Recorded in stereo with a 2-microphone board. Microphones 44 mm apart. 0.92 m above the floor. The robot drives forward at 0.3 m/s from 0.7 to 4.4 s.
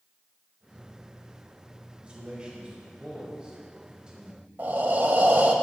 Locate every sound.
2.0 s a man speaking: 25° right (ahead or behind), 3.5 m; by 4.5 s 20° right (ahead or behind), 4 m
4.6 s breathing: 50° right (ahead or behind), 0.8 m